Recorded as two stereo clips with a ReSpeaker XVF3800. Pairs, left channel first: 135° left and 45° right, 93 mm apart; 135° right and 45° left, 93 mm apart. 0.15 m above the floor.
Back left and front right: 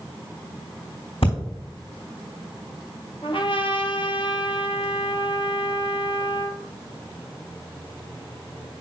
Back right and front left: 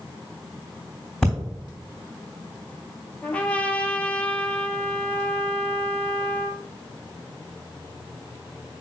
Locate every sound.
1.2 s breathing: 140° left, 3.5 m
3.2 s a trumpet: 150° left, 1.3 m